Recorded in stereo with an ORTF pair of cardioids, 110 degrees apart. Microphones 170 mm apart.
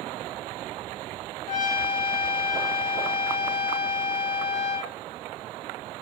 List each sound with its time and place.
1.5 s a trumpet: 50° left, 0.7 m